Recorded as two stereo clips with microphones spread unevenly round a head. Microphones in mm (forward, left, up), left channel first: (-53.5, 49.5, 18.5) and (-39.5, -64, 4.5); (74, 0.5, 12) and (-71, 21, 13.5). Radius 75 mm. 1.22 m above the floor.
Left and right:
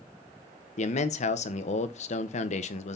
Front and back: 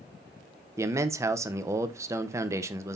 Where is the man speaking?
100° left, 1.1 m.